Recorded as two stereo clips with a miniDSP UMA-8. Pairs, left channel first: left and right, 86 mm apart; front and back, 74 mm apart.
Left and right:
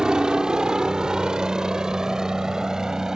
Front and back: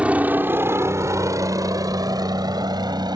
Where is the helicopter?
150° right; by 3.2 s 175° right.